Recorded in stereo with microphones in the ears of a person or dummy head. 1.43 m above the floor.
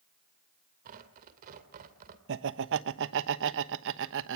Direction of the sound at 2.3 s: 70° right (ahead or behind).